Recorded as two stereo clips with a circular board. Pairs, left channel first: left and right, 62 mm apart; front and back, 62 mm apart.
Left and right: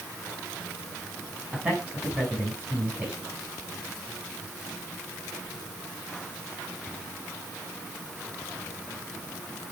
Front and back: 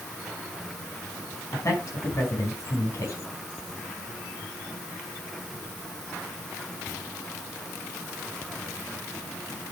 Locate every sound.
1.5 s a man speaking: 25° right, 5 m